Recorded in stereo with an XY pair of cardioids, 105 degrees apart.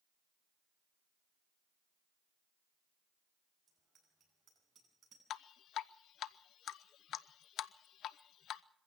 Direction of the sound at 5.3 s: 70° left.